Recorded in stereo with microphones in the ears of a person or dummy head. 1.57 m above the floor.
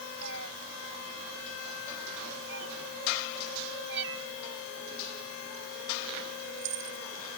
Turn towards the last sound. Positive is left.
turn(degrees=-70)  # may be behind; listen again after turning